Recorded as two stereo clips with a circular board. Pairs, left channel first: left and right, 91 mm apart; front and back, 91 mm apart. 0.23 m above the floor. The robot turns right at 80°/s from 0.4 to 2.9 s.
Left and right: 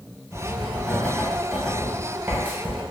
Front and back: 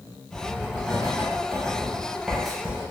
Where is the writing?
100° left, 0.8 m; by 2.8 s 70° right, 0.8 m.